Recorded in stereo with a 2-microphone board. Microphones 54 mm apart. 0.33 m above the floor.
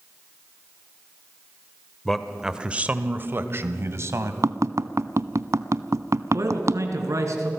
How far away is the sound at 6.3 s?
About 3.5 m.